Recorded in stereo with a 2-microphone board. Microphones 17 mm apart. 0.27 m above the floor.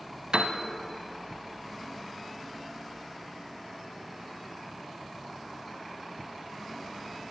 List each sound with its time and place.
0.3 s a piano: 65° right (ahead or behind), 0.7 m